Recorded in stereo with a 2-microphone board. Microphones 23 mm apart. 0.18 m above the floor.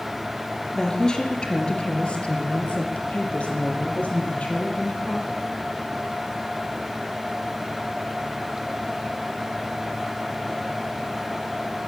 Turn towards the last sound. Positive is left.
turn(degrees=75)  # may be behind; listen again after turning